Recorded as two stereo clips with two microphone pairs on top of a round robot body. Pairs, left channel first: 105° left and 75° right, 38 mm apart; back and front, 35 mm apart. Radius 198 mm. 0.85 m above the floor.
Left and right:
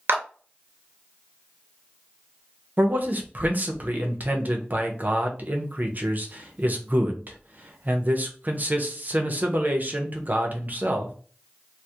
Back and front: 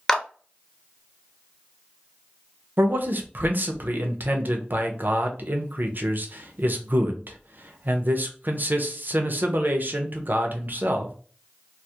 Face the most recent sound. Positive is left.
turn(degrees=-35)